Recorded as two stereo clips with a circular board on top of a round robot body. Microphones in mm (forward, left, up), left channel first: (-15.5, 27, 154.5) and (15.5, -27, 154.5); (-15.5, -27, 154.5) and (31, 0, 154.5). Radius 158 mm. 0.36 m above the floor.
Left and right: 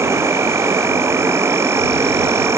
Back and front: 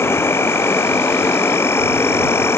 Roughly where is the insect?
Right.